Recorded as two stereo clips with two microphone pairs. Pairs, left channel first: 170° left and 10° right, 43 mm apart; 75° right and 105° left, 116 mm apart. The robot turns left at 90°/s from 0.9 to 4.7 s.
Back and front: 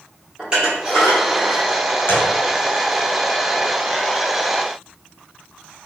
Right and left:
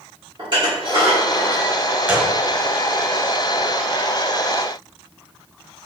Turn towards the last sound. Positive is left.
turn(degrees=-60)